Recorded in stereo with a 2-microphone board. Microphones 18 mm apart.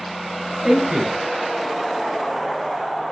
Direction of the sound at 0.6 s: 40° right (ahead or behind).